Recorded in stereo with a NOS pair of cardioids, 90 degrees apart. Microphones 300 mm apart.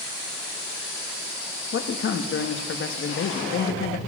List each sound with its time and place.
1.7 s a man speaking: 45° left, 1.4 m